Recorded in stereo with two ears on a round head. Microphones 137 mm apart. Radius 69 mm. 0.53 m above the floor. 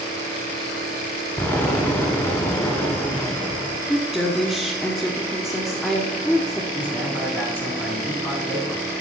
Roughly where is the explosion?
Centre.